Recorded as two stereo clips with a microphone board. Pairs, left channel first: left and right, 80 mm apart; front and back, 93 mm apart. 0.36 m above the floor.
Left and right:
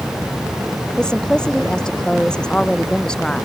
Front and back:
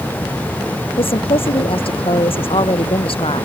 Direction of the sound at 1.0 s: 10° left.